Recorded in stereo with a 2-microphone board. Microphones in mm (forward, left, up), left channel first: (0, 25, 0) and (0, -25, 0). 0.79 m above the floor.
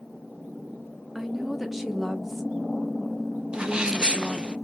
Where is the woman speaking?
5° right (ahead or behind), 0.5 m.